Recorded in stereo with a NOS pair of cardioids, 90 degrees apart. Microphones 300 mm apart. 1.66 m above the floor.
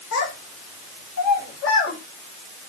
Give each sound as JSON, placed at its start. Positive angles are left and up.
{"t": 0.1, "sound": "a child speaking", "azimuth_deg": 60, "distance_m": 4.5}